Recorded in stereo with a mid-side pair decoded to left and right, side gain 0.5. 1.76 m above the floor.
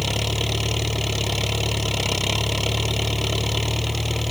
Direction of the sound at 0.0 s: 5° left.